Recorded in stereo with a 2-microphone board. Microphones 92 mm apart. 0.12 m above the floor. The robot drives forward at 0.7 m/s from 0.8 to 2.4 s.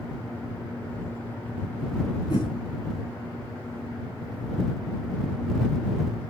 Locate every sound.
2.3 s a whoosh: 45° left (ahead or behind), 8 m